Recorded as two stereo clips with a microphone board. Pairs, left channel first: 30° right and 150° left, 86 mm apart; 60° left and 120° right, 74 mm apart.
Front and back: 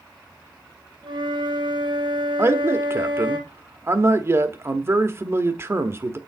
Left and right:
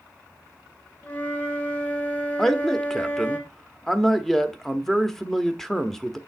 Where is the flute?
130° left, 2.5 m.